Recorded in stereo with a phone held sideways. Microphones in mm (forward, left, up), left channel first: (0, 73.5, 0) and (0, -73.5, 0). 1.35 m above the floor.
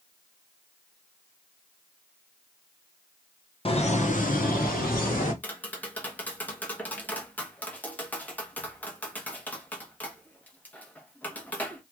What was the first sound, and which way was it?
Laughter, 40° left (ahead or behind).